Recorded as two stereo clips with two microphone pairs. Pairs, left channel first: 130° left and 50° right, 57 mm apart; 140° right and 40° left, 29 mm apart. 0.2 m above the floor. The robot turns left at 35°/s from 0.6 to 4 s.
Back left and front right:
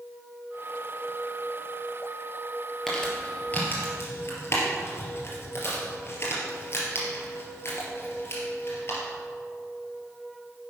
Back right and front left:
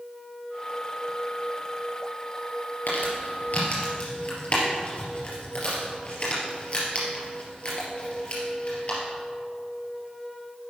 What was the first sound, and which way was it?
Crumpling, 145° right.